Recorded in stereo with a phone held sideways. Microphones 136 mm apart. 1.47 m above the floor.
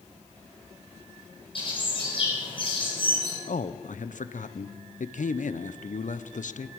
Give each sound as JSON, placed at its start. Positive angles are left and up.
{"t": 1.6, "sound": "a bird", "side_deg": 45, "distance_m": 6.5}
{"t": 3.5, "sound": "a man speaking", "side_deg": 85, "distance_m": 0.7}